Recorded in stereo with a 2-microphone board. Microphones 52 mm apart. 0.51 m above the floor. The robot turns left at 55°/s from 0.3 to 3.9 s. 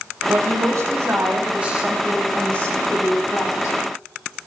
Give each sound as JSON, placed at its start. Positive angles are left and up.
{"t": 0.3, "sound": "a woman speaking", "azimuth_deg": -80, "distance_m": 3.5}